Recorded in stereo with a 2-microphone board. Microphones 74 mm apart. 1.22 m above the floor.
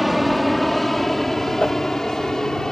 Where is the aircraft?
Centre (ahead or behind); by 2.7 s 10° left (ahead or behind).